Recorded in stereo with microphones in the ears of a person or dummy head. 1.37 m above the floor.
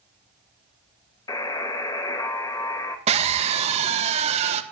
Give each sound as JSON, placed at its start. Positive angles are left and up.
{"t": 1.3, "sound": "a buzzer", "side_deg": 20, "distance_m": 2.0}
{"t": 3.1, "sound": "a scream", "side_deg": -35, "distance_m": 2.0}